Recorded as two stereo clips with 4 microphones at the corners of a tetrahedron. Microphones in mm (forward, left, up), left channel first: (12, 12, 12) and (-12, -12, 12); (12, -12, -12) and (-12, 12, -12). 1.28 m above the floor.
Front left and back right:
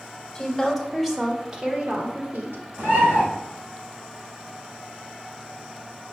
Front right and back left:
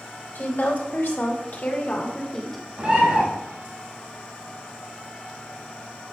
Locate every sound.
0.3 s a woman speaking: 35° right, 3 m; by 2.6 s 130° right, 1.7 m
2.8 s a bird: 165° right, 4 m